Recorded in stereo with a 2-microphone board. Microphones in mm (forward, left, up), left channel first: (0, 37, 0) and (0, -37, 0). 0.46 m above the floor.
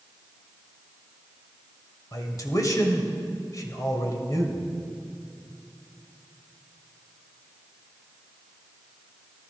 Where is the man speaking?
50° left (ahead or behind), 2.5 m.